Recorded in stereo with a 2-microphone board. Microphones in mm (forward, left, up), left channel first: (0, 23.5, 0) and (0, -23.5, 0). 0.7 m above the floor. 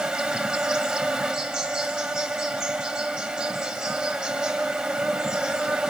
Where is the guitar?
I don't hear a guitar.